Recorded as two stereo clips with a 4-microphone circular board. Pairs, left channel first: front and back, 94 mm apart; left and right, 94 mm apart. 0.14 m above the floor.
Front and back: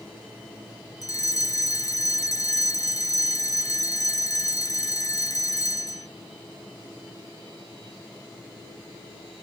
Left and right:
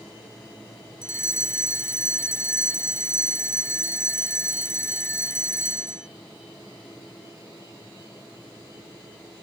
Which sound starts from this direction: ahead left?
A fire alarm, at 1.0 s.